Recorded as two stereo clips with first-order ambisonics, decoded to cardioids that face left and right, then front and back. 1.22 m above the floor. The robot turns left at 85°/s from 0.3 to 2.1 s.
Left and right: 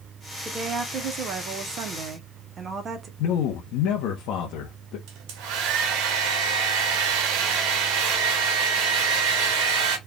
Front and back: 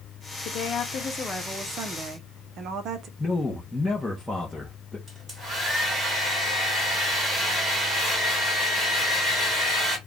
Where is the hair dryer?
105° right, 1.3 m.